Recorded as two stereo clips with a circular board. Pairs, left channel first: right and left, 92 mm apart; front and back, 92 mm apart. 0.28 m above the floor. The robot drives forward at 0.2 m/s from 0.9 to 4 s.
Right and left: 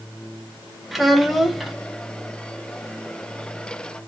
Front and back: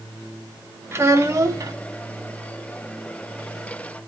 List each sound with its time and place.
0.9 s a child speaking: 175° left, 0.6 m; by 1.8 s straight behind, 0.7 m